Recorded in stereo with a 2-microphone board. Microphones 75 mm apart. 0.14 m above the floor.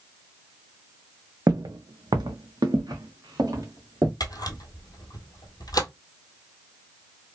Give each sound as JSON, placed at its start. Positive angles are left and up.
{"t": 1.5, "sound": "footsteps", "side_deg": -55, "distance_m": 0.5}
{"t": 4.2, "sound": "a camera shutter", "side_deg": 60, "distance_m": 0.9}